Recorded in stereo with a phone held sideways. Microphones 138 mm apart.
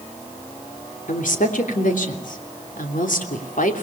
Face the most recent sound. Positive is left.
turn(degrees=75)  # may be behind; listen again after turning